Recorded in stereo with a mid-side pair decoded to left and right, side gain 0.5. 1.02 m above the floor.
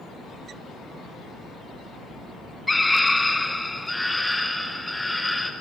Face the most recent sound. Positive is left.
turn(degrees=10)